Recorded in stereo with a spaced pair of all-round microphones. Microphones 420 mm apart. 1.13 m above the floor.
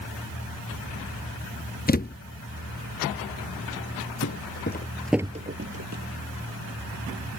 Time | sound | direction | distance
1.9 | a thud | 20° left (ahead or behind) | ?
4.2 | footsteps | 40° left (ahead or behind) | ?